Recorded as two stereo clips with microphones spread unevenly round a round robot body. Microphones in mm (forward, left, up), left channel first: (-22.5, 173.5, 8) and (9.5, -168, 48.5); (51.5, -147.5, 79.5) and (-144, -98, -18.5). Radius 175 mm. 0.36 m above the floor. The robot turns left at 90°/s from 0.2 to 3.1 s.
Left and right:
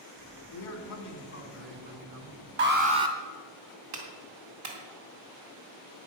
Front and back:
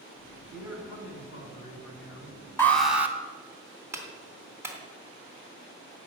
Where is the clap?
125° right, 3 m.